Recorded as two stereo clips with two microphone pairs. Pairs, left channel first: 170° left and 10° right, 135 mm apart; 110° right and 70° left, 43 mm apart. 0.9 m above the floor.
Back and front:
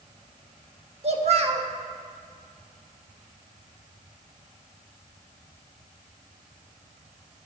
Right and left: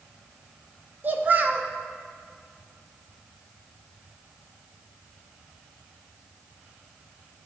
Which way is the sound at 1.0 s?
25° left.